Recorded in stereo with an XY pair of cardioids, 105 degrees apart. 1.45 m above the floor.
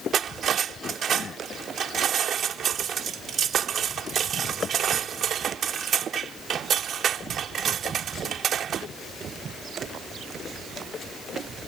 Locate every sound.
0.1 s cutlery clinking: 55° right